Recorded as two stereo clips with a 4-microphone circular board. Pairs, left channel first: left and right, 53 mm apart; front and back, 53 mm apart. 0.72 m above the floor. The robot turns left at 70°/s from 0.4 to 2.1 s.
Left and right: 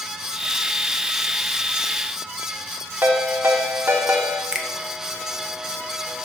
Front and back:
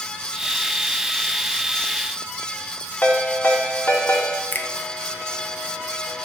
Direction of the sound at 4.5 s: 20° right.